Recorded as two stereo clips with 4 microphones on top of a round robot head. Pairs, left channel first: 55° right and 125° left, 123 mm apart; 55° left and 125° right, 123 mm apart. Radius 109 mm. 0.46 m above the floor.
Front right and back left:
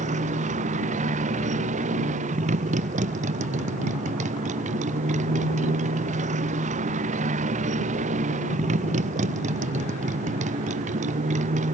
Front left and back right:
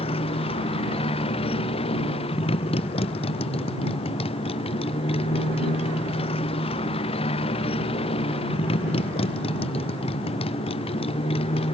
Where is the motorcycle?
100° left.